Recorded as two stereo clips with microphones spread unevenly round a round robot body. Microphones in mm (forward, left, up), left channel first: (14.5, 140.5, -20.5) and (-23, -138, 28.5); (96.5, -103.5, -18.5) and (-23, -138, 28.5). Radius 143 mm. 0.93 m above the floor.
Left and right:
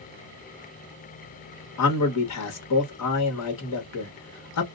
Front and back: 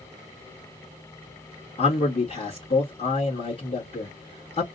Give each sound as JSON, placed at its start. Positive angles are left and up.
{"t": 1.8, "sound": "a man speaking", "azimuth_deg": 60, "distance_m": 1.3}